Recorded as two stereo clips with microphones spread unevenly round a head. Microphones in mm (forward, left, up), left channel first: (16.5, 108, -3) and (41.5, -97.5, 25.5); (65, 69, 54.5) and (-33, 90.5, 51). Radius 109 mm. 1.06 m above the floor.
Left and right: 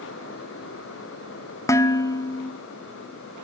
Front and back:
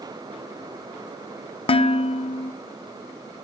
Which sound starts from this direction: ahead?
Dishes clattering, at 1.7 s.